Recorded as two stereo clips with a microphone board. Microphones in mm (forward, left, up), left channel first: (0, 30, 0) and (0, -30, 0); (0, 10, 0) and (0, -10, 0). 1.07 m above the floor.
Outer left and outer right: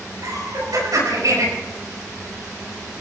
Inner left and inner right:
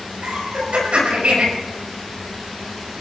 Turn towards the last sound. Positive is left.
turn(degrees=-75)  # may be behind; listen again after turning